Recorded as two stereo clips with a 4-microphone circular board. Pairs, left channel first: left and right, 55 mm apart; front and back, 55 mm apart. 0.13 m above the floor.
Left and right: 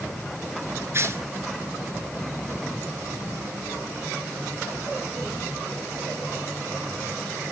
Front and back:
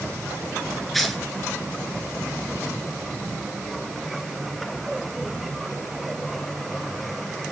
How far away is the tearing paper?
About 1.9 m.